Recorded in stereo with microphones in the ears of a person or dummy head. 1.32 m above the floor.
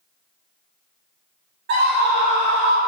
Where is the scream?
55° right (ahead or behind), 2 m; by 2.8 s 80° right, 1.3 m.